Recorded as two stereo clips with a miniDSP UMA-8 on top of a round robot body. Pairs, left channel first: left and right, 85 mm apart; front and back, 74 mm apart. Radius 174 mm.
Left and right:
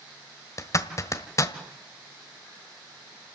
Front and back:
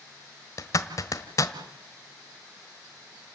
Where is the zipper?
40° left, 1.5 m.